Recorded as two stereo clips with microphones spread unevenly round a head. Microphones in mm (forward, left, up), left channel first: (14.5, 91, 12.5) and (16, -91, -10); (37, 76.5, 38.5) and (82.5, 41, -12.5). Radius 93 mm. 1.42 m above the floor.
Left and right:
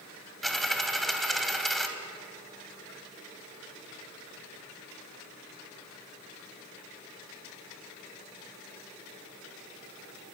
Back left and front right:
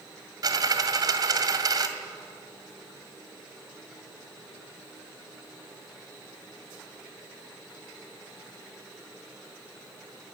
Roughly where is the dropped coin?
Ahead.